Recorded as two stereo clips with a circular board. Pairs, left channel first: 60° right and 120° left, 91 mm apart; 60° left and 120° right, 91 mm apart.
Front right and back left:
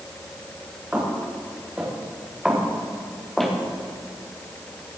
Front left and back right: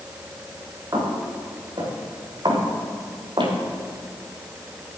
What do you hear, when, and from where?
0.9 s footsteps: 165° right, 6 m; by 3.5 s 145° right, 4 m